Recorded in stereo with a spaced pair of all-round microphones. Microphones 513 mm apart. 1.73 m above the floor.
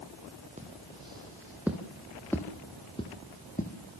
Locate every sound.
0.6 s footsteps: 15° right (ahead or behind), 2.5 m; by 3.7 s 15° left (ahead or behind), 3 m